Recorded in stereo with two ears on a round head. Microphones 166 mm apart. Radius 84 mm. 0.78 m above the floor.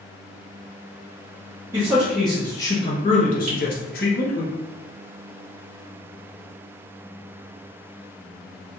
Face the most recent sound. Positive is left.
turn(degrees=-45)  # may be behind; listen again after turning